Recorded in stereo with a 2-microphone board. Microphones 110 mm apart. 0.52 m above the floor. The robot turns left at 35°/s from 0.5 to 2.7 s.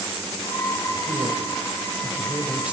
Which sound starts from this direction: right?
A man speaking, at 1.1 s.